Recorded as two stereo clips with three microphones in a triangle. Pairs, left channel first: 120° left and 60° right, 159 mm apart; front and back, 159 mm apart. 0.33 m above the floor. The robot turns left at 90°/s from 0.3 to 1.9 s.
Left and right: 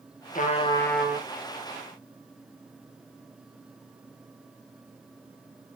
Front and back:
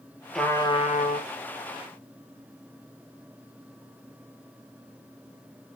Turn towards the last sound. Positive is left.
turn(degrees=-50)